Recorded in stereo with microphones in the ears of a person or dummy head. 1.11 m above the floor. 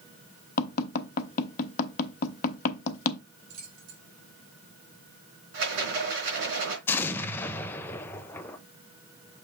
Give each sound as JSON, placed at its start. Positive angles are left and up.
{"t": 0.6, "sound": "tapping", "side_deg": 45, "distance_m": 1.0}
{"t": 3.5, "sound": "keys jangling", "side_deg": -85, "distance_m": 3.5}
{"t": 5.5, "sound": "a rattle", "side_deg": -60, "distance_m": 4.0}
{"t": 6.9, "sound": "an explosion", "side_deg": 10, "distance_m": 0.6}